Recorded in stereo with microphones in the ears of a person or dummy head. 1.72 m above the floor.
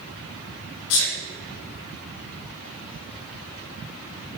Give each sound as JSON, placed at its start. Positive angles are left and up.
{"t": 0.9, "sound": "a sneeze", "side_deg": 75, "distance_m": 1.7}